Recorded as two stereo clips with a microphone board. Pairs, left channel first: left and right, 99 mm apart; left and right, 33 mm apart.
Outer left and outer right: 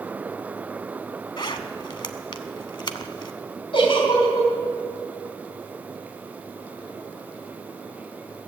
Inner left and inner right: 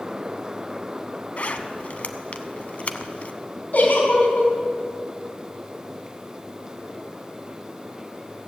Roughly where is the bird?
No bird in this recording.